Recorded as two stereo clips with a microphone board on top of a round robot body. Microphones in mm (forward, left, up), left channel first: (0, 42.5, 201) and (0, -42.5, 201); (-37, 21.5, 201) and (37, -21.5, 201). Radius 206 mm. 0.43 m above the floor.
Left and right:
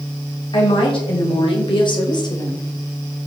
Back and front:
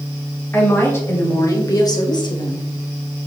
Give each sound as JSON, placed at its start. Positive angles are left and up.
{"t": 0.5, "sound": "a woman speaking", "azimuth_deg": 85, "distance_m": 3.0}